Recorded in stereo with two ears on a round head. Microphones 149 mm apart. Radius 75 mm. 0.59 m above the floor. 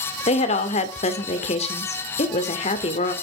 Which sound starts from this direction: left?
A woman speaking, at 0.3 s.